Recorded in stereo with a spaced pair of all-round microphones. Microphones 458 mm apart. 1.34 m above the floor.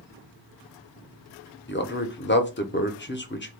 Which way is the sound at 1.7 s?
25° left (ahead or behind).